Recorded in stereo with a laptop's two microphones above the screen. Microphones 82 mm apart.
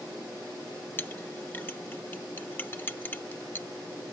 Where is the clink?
25° left (ahead or behind).